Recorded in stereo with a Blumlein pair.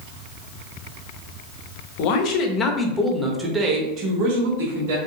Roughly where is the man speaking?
Ahead left.